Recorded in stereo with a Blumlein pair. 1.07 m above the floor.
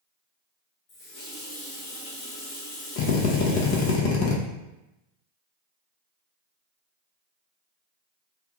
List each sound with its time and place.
0.9 s a running tap: 30° left, 1.1 m
3.0 s a drill: 45° left, 0.5 m